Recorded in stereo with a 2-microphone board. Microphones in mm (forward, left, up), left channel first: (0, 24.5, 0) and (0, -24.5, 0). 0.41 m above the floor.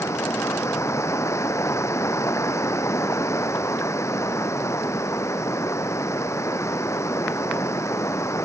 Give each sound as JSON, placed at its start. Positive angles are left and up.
{"t": 0.0, "sound": "running water", "side_deg": 80}